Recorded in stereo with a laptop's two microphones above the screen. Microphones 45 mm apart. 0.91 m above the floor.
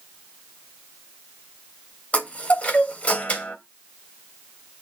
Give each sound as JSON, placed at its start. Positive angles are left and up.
{"t": 2.1, "sound": "a chime", "side_deg": 35, "distance_m": 2.5}